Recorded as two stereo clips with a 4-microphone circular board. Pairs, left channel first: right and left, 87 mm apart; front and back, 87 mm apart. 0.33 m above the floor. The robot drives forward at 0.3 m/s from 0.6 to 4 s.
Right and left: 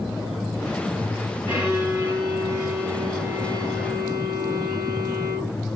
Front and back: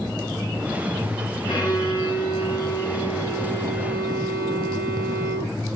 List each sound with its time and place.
1.5 s a violin: 35° left, 2 m; by 5.5 s 50° left, 1.7 m